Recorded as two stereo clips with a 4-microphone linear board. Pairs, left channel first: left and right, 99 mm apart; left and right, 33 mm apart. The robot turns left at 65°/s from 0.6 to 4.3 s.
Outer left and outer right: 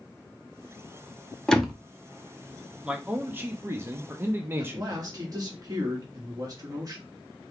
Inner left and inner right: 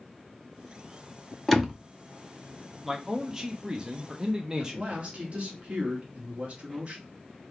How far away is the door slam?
About 0.7 m.